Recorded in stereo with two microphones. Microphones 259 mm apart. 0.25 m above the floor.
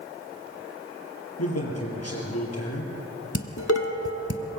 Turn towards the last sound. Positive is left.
turn(degrees=65)  # may be behind; listen again after turning